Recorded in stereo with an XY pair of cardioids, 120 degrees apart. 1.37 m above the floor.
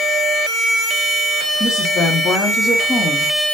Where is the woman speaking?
35° left, 3 m.